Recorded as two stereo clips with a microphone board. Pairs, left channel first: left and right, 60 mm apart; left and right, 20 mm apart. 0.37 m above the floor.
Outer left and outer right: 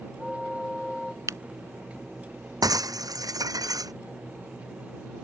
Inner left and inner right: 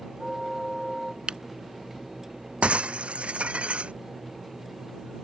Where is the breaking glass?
80° right.